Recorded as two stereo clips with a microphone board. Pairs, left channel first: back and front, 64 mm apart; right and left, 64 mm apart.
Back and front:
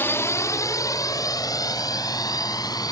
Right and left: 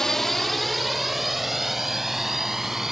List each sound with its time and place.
0.0 s a drone: 165° right; by 2.9 s 175° left